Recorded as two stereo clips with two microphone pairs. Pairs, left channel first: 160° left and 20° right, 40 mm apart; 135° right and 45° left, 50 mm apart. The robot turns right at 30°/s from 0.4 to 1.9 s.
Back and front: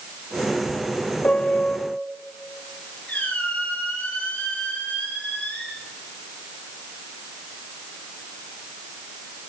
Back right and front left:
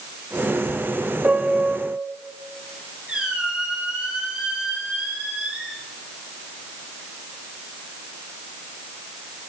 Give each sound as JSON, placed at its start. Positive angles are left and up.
{"t": 1.2, "sound": "a piano", "azimuth_deg": 105, "distance_m": 0.7}
{"t": 3.1, "sound": "a squeak", "azimuth_deg": 115, "distance_m": 5.5}